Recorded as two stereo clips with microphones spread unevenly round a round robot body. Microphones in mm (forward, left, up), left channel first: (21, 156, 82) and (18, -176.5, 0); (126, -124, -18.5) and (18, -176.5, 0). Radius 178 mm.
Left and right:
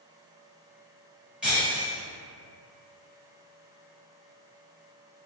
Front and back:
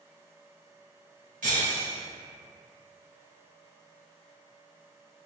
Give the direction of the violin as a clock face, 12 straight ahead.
I don't hear a violin.